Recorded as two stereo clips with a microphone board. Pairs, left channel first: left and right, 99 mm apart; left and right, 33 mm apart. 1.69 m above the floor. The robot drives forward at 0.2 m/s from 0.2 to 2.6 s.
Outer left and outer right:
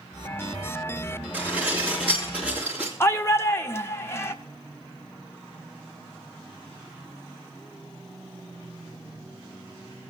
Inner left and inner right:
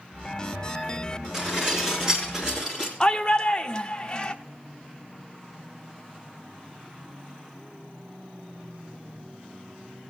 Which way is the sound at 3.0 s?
25° left (ahead or behind).